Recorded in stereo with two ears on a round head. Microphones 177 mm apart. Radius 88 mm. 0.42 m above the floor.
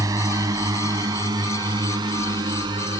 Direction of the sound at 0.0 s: 20° right (ahead or behind).